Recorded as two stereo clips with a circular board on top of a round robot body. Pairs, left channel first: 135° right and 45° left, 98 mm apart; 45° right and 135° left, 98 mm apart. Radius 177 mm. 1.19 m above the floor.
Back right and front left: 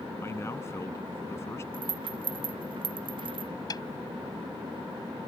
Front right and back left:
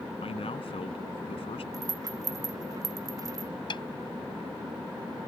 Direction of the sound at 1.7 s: 80° left.